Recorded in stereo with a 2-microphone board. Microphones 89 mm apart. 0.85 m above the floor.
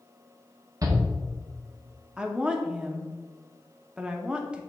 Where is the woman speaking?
10° right (ahead or behind), 0.8 m.